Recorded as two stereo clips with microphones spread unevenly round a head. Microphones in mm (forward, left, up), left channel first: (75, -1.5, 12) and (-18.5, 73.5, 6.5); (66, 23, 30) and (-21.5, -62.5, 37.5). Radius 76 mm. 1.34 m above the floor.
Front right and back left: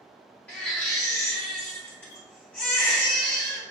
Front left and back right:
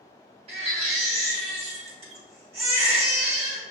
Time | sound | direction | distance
0.5 | a baby crying | 115° right | 1.1 m